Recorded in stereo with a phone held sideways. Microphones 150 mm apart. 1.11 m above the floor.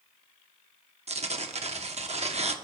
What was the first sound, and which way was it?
Tearing paper, 50° right (ahead or behind).